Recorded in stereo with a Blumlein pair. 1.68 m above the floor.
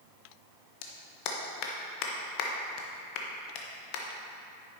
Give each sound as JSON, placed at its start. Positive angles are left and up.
{"t": 0.8, "sound": "a clap", "azimuth_deg": 45, "distance_m": 1.2}